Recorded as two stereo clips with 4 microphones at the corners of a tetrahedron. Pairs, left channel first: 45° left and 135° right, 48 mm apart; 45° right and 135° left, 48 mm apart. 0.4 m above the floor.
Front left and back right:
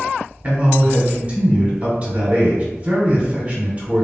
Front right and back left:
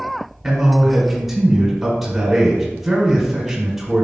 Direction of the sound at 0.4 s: 150° right.